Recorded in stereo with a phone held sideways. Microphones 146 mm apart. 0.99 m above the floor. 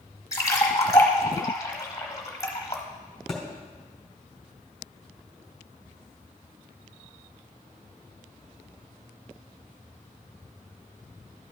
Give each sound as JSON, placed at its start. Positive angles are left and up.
{"t": 0.3, "sound": "a splash", "side_deg": 25, "distance_m": 1.3}
{"t": 3.3, "sound": "a thud", "side_deg": 0, "distance_m": 2.5}